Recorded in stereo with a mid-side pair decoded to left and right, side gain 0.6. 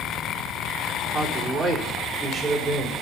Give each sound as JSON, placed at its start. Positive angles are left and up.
{"t": 1.1, "sound": "a man speaking", "azimuth_deg": -10, "distance_m": 3.5}